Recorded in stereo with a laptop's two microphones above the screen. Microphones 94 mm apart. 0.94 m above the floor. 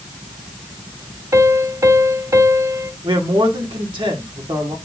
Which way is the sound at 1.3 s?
35° right (ahead or behind).